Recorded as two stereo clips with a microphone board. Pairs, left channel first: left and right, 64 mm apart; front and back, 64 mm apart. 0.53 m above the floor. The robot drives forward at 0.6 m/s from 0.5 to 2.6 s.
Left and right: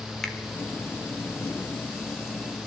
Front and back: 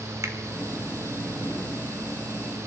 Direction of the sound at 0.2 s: 170° left.